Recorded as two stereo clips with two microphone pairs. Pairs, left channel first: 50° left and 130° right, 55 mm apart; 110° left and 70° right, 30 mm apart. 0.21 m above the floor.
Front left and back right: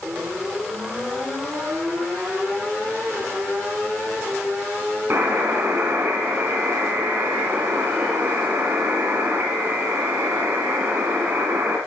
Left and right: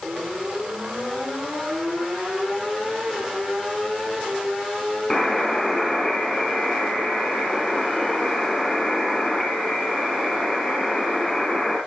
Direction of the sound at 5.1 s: 175° right.